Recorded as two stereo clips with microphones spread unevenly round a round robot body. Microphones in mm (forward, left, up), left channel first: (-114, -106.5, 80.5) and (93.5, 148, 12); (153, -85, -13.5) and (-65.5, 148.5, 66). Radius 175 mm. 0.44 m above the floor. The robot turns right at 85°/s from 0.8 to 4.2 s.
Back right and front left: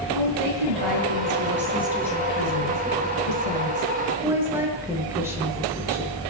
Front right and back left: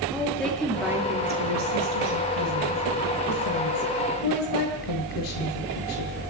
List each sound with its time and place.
0.1 s a woman speaking: 40° left, 7 m; by 6.2 s 30° right, 7 m